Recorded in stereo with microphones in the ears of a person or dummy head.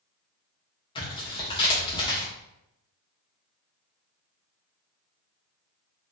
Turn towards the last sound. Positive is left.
turn(degrees=20)  # may be behind; listen again after turning